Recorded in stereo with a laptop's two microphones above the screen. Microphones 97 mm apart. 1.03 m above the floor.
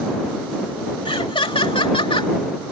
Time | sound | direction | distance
1.1 | laughter | 65° left (ahead or behind) | ?